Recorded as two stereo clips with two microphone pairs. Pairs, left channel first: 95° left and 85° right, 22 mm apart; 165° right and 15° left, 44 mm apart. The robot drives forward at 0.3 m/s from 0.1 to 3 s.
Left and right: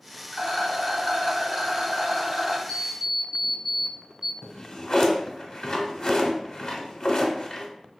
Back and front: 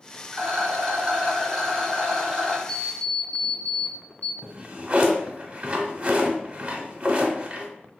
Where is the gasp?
I don't hear a gasp.